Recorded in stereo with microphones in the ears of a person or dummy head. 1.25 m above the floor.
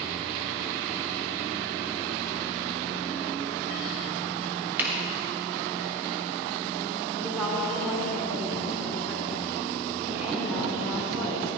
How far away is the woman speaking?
About 4 m.